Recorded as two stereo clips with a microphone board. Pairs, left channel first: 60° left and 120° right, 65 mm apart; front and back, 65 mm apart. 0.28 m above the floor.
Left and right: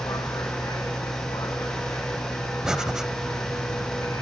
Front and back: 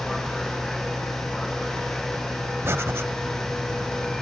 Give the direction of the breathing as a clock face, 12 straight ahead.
7 o'clock.